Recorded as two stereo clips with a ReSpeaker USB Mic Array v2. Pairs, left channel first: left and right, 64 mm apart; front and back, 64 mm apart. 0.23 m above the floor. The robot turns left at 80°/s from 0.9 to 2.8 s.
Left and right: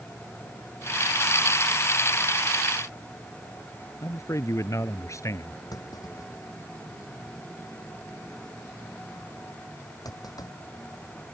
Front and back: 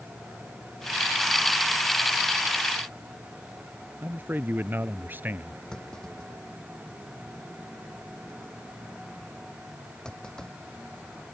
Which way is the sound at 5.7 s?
75° left.